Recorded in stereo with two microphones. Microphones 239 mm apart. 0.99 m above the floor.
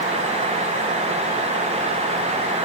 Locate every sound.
Only background noise.